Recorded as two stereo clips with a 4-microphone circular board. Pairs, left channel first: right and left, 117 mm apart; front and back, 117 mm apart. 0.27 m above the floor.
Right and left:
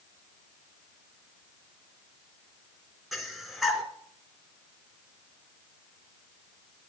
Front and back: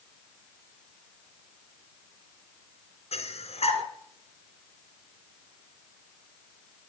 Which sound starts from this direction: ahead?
Breathing, at 3.1 s.